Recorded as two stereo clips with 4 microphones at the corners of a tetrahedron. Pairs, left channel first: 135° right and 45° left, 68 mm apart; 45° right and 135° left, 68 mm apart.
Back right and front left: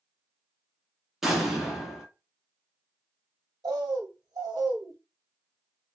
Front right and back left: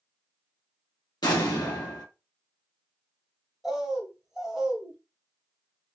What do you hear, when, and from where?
1.2 s an explosion: 40° right, 1.0 m
3.6 s a bird: 50° left, 0.8 m